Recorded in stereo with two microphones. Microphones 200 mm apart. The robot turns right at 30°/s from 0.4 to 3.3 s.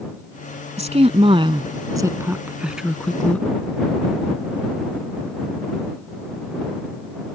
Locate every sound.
0.8 s a woman speaking: 35° right (ahead or behind); by 3.5 s 5° left (ahead or behind)